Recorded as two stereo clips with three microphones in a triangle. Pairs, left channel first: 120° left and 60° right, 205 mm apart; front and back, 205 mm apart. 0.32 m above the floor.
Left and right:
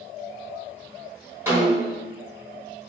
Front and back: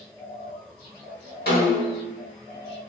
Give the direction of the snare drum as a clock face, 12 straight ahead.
11 o'clock.